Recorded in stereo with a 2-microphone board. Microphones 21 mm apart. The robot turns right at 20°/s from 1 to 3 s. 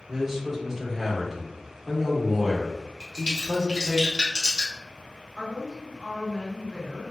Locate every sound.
0.1 s a man speaking: 15° right (ahead or behind), 0.8 m; by 4.0 s centre (ahead or behind), 0.8 m
3.0 s a crack: 30° right (ahead or behind), 1.1 m
5.4 s a woman speaking: 25° right (ahead or behind), 1.0 m